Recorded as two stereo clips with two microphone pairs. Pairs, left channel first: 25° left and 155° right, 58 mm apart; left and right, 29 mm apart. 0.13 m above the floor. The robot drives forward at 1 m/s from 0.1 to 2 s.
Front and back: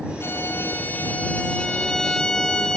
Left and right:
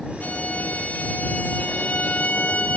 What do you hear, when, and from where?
0.2 s a violin: 70° left, 3.5 m; by 2.8 s 105° left, 3.5 m